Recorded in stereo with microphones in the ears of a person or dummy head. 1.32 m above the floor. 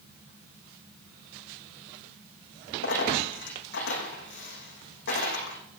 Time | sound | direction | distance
2.8 | a dropped coin | 60° left (ahead or behind) | 8 m